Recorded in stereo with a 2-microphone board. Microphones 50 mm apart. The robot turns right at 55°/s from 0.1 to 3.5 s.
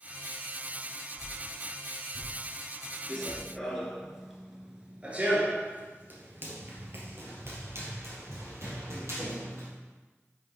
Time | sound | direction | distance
1.2 | a whoosh | 30° right (ahead or behind) | 4 m
3.1 | running footsteps | 15° left (ahead or behind) | 1.6 m